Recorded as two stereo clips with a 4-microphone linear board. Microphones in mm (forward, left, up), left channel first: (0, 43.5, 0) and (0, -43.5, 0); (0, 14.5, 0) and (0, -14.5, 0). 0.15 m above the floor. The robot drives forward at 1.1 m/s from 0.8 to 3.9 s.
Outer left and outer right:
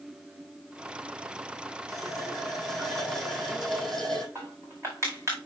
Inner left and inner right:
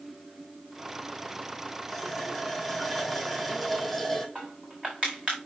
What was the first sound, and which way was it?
A running tap, centre (ahead or behind).